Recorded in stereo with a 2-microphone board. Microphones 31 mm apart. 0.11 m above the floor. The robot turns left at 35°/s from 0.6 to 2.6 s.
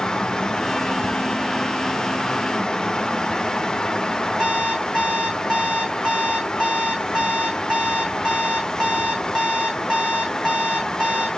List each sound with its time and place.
4.4 s an alarm clock: 30° right (ahead or behind), 3.5 m